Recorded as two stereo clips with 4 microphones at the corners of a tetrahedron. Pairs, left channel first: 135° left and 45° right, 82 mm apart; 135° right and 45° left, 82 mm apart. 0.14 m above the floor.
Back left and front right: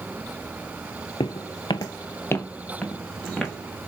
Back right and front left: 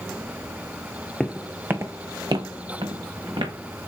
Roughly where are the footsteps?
Behind left.